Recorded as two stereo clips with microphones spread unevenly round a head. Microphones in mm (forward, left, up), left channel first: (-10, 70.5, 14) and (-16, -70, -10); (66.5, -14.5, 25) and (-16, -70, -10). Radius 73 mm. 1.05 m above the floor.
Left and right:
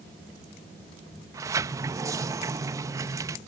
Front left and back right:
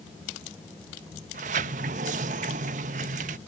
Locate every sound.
1.3 s a sliding door: 165° right